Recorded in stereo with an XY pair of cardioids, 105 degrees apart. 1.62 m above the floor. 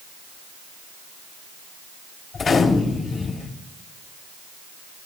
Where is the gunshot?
50° left, 3 m.